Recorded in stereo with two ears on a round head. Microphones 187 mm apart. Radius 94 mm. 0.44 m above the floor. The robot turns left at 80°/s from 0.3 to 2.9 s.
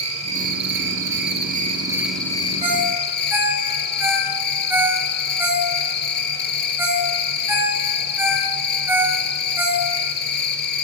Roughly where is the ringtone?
Right.